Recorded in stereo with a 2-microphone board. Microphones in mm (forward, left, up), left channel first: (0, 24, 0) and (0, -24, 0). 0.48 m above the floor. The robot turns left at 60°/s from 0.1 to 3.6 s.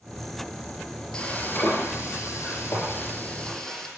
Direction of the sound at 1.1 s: 155° left.